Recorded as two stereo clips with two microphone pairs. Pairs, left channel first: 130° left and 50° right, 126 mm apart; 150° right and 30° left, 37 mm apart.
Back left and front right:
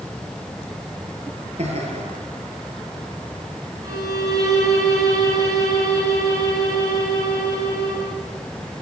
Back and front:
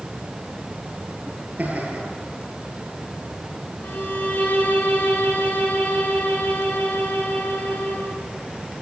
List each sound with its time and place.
1.6 s laughter: 15° right, 9 m
3.8 s a violin: 110° right, 9.5 m